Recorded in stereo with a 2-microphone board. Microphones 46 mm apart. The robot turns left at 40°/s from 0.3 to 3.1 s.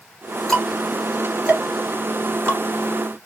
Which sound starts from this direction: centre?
Ticking, at 0.5 s.